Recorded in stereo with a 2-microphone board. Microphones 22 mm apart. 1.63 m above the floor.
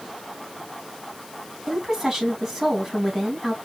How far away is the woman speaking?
About 2.5 m.